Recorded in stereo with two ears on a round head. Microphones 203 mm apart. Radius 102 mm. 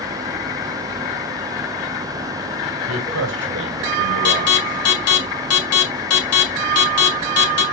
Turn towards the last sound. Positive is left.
turn(degrees=70)  # may be behind; listen again after turning